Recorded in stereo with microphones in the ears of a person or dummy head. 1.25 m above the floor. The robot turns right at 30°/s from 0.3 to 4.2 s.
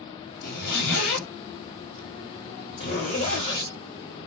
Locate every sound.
0.4 s a zipper: 50° left (ahead or behind), 1.2 m; by 3.7 s 30° left (ahead or behind), 1.2 m